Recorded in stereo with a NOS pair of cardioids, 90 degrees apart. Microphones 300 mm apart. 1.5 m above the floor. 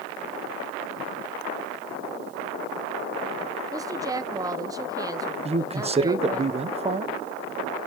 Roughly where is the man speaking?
Ahead.